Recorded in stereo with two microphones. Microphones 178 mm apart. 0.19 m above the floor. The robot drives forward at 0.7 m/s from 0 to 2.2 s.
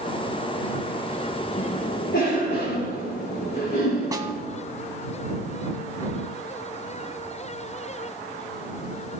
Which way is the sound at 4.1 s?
20° right (ahead or behind).